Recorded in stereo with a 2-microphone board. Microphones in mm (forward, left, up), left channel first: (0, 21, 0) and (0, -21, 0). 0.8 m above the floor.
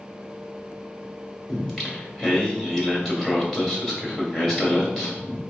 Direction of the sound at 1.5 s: 15° left (ahead or behind).